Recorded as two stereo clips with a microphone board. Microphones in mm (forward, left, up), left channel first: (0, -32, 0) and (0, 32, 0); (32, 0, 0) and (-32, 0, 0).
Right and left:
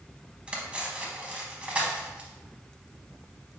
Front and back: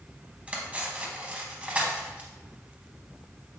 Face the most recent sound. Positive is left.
turn(degrees=140)